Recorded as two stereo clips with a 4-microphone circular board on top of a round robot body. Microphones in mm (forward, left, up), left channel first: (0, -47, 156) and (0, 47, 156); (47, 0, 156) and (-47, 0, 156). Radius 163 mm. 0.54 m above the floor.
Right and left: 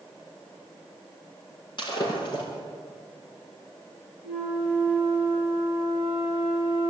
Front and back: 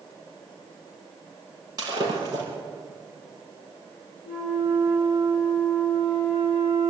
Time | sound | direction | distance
1.8 | breaking glass | 130° right | 6 m
4.2 | a flute | 110° right | 7 m